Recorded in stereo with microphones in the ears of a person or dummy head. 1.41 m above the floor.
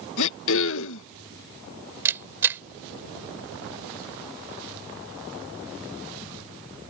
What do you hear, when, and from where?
0.2 s throat clearing: 65° left (ahead or behind)
2.0 s a camera shutter: 15° right (ahead or behind)